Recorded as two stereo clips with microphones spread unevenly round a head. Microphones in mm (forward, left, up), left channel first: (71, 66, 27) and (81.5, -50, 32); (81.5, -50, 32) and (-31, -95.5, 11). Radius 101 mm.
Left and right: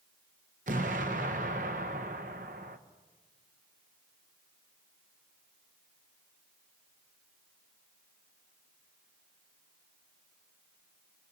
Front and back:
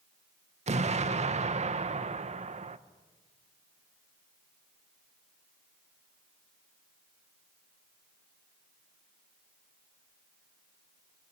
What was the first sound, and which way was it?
An explosion, 125° right.